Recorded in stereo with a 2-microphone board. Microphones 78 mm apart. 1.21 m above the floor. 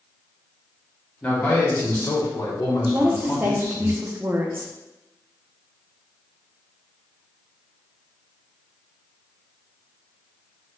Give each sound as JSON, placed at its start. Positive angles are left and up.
{"t": 1.2, "sound": "a man speaking", "side_deg": 20, "distance_m": 1.3}
{"t": 2.9, "sound": "a woman speaking", "side_deg": -30, "distance_m": 0.5}